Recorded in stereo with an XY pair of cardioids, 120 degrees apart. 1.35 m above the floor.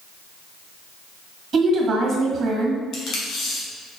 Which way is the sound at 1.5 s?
50° right.